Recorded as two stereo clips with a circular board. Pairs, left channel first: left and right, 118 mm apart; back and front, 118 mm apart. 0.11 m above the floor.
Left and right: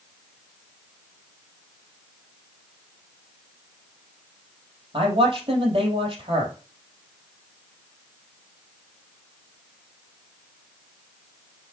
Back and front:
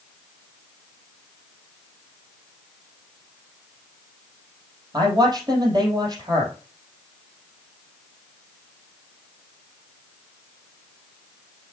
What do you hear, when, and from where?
4.9 s a man speaking: 50° right, 3 m